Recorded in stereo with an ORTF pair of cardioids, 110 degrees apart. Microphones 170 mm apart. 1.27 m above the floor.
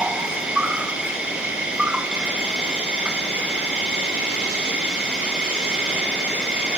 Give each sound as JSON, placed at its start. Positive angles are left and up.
{"t": 0.0, "sound": "an insect", "azimuth_deg": -5, "distance_m": 1.2}